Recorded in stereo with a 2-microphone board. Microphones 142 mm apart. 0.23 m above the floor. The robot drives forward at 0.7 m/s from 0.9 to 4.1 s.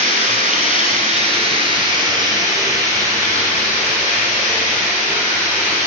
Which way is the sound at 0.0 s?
60° right (ahead or behind).